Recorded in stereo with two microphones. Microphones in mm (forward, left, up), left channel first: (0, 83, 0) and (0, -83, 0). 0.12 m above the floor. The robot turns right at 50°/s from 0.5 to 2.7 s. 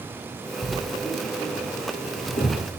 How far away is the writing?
About 1.7 m.